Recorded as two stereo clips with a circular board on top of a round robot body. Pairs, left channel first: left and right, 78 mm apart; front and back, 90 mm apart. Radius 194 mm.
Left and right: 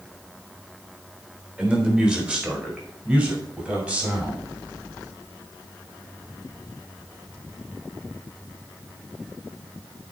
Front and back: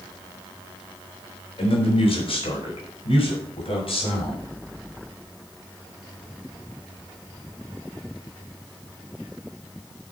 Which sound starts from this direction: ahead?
A man speaking, at 1.6 s.